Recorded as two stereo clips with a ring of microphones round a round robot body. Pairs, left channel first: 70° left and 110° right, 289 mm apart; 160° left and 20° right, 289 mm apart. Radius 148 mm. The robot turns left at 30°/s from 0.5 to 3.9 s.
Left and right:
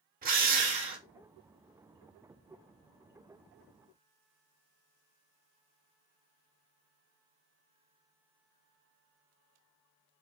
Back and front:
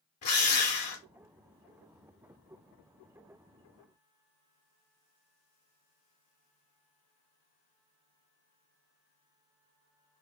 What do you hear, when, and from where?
0.2 s a drill: 170° right, 1.3 m; by 1.0 s 175° left, 1.3 m